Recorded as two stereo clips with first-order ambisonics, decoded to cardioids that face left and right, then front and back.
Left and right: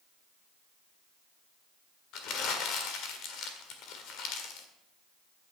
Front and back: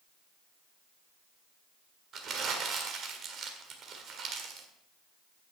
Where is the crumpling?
125° left, 1.6 m.